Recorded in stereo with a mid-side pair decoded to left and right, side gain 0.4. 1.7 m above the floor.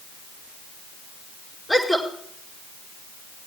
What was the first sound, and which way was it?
A woman speaking, 15° left.